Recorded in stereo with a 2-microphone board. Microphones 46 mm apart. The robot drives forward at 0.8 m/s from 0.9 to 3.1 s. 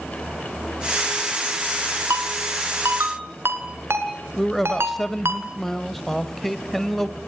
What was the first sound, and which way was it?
A ringtone, 80° right.